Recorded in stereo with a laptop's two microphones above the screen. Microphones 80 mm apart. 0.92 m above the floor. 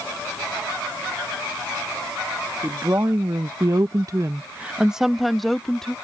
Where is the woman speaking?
35° right (ahead or behind); by 6.0 s 5° left (ahead or behind).